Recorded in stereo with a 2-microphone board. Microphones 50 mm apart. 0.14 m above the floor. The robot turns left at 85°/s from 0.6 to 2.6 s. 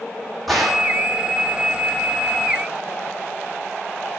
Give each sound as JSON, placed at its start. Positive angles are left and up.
{"t": 0.5, "sound": "a gunshot", "azimuth_deg": 5, "distance_m": 1.3}